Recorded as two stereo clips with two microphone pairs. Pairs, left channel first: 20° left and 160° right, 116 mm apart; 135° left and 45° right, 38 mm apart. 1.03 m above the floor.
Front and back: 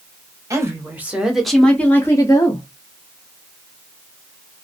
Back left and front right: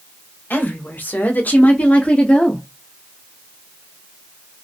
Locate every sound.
0.5 s a woman speaking: 145° left, 1.2 m; by 2.6 s 70° left, 1.2 m